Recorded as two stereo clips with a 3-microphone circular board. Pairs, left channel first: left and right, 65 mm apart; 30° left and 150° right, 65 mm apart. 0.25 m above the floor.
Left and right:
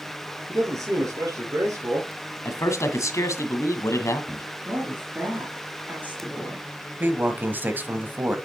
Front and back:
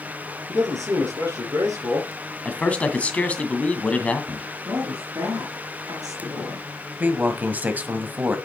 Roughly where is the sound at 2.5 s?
Left.